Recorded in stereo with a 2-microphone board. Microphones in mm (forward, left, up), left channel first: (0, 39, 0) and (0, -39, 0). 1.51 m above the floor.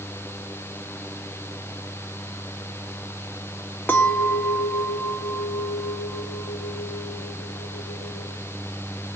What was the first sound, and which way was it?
A clink, 25° left (ahead or behind).